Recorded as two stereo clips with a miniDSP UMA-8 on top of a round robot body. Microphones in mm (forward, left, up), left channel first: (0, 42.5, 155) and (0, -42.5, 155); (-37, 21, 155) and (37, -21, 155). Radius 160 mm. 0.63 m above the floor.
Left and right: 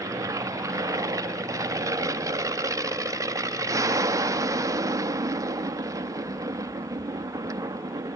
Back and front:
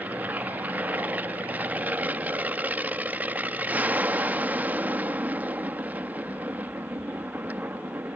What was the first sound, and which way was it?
An aircraft, 90° right.